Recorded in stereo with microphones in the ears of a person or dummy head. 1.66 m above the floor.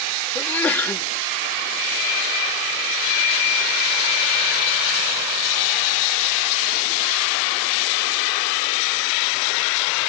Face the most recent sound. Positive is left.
turn(degrees=10)  # may be behind; listen again after turning